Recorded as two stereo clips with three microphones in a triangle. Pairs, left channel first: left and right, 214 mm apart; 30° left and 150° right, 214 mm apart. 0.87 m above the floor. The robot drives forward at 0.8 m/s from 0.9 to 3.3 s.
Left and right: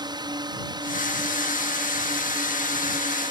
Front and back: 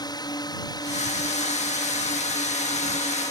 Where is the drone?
30° right; by 3.3 s 35° right.